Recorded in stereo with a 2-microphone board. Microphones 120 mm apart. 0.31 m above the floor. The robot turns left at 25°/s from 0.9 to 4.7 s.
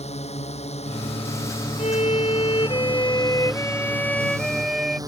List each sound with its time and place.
0.0 s a drone: 65° left; by 5.1 s 30° right
1.8 s a violin: 70° left; by 5.0 s 5° right